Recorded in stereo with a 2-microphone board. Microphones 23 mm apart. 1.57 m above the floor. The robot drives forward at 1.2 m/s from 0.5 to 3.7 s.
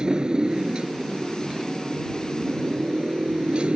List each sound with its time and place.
0.0 s a motorcycle: 35° right (ahead or behind); by 3.8 s 50° right (ahead or behind)